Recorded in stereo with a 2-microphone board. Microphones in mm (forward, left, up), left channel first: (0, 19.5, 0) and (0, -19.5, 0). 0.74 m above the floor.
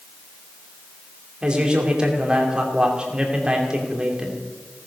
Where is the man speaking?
25° right (ahead or behind), 2.5 m.